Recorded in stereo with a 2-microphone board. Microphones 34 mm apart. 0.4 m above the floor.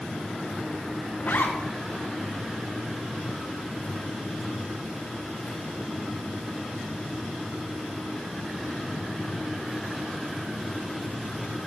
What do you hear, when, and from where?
1.2 s a zipper: 70° left (ahead or behind), 1.5 m